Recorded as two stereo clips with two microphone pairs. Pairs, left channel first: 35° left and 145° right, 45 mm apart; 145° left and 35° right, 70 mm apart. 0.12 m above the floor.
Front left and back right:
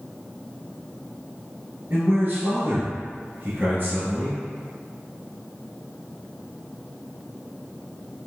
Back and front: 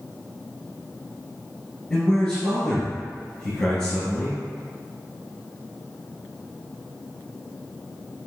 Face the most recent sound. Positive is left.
turn(degrees=-155)